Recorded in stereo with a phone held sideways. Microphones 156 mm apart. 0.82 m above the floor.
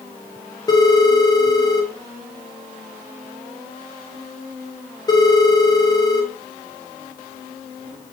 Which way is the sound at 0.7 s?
25° left (ahead or behind).